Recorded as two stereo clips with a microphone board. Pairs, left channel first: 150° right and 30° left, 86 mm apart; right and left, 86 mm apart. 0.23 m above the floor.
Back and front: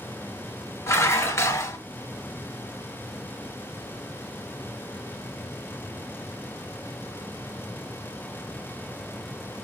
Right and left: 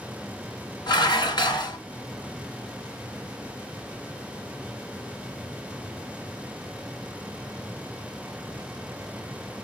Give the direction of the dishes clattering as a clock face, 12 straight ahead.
3 o'clock.